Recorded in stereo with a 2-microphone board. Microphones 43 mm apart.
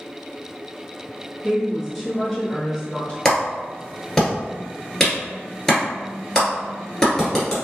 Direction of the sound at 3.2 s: 15° left (ahead or behind).